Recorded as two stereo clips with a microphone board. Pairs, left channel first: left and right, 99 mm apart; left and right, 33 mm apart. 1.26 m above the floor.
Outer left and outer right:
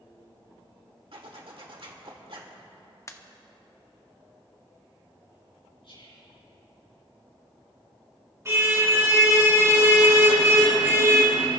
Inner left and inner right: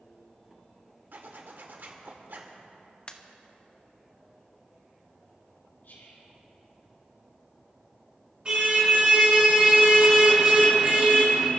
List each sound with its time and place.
1.1 s a zipper: 65° right (ahead or behind), 1.7 m
3.1 s a pop: 30° left (ahead or behind), 0.9 m
5.8 s whispering: 75° left (ahead or behind), 4.5 m
8.4 s a car horn: 30° right (ahead or behind), 5.5 m